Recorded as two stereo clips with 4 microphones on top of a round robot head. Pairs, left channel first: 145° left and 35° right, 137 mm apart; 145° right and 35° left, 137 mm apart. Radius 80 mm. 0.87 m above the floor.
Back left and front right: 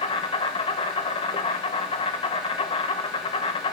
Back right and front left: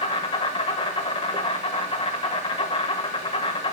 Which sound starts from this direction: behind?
An insect, at 0.0 s.